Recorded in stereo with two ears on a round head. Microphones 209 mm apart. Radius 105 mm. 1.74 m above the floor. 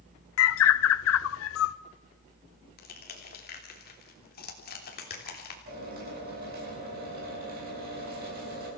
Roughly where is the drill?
Right.